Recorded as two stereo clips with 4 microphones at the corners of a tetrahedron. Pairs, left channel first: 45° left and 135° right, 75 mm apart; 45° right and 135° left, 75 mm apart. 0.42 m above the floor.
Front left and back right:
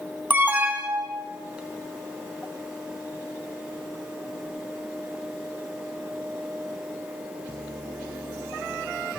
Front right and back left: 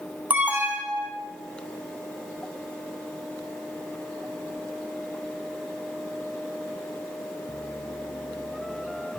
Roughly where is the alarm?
Behind.